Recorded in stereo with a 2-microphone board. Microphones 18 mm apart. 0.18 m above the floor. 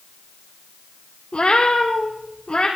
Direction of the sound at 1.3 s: 75° left (ahead or behind).